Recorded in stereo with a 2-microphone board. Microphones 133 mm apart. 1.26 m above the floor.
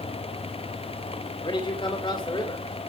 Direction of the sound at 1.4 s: 40° left (ahead or behind).